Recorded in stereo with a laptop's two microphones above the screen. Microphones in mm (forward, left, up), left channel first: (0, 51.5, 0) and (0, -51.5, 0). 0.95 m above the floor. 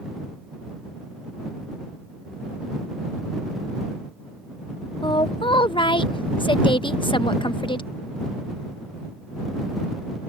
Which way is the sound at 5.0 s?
55° left (ahead or behind).